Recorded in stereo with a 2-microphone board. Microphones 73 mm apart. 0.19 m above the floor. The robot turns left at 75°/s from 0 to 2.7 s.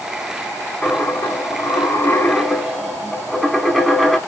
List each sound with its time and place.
0.8 s a dropped coin: 140° left, 0.6 m; by 4.2 s straight ahead, 0.6 m